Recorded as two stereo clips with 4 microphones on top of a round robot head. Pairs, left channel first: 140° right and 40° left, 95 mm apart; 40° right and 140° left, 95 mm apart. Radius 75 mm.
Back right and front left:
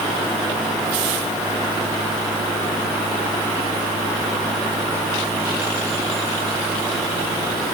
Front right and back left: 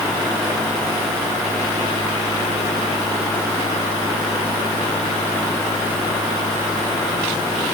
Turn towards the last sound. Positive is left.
No sound to turn to.